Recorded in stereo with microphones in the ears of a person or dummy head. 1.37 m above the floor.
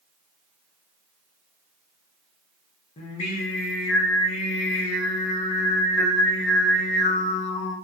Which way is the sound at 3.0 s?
45° left (ahead or behind).